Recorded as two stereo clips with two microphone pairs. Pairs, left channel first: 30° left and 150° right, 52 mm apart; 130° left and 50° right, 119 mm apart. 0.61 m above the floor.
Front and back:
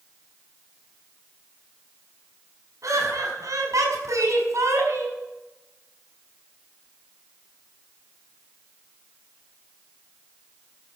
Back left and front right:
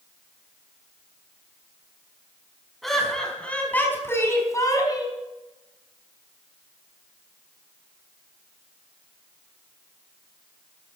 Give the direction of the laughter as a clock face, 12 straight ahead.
5 o'clock.